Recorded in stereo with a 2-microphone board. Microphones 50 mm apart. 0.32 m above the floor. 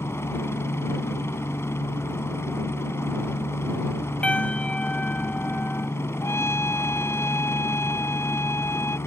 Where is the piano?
25° left (ahead or behind).